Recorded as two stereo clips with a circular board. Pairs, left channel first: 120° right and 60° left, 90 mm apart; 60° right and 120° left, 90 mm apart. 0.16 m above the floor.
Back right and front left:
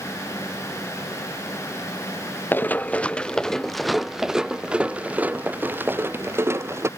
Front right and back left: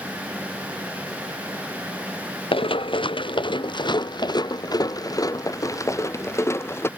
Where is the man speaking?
No man speaking in this recording.